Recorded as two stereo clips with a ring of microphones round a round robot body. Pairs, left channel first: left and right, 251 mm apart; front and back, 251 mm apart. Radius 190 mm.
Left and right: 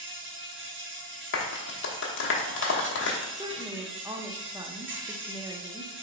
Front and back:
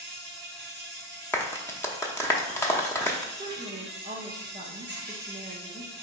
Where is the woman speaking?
150° right, 0.7 m.